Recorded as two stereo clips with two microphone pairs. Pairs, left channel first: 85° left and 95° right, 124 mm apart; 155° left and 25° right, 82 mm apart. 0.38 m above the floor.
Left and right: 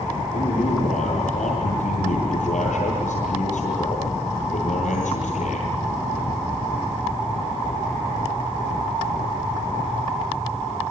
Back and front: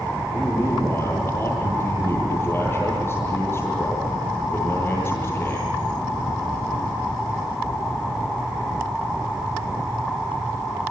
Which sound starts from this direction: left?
A man speaking, at 0.3 s.